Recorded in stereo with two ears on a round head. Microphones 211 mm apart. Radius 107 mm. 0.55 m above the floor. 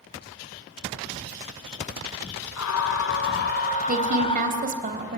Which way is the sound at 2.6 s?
70° left (ahead or behind).